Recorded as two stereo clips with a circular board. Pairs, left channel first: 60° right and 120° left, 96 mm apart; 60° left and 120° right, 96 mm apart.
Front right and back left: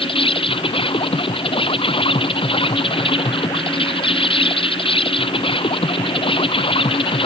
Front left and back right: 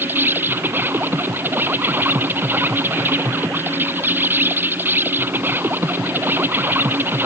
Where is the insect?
55° right.